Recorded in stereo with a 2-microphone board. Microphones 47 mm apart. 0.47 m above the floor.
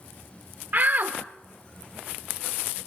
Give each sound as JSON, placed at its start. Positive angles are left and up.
{"t": 0.7, "sound": "a shout", "side_deg": -40, "distance_m": 1.1}